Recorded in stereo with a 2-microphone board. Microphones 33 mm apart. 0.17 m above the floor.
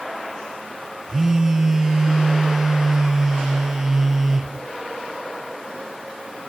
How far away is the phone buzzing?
About 1.5 m.